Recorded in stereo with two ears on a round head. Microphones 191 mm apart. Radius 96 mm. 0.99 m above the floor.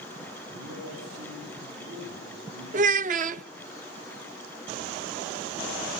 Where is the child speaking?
40° right (ahead or behind), 0.6 m.